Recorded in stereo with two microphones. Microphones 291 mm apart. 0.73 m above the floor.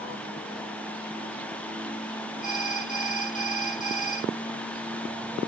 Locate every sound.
2.4 s an alarm: 80° right